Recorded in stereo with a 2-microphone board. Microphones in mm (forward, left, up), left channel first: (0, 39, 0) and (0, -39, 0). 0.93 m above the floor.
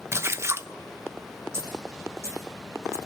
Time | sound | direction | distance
0.1 | a splash | 35° right (ahead or behind) | 0.6 m
1.5 | a dropped coin | 35° right (ahead or behind) | 5.5 m